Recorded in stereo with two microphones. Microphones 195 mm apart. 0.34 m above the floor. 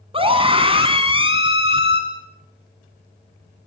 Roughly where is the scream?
Right.